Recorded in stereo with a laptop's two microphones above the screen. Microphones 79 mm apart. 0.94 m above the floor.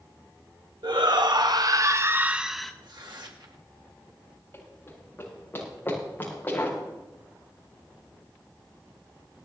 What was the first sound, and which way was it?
A shout, 70° right (ahead or behind).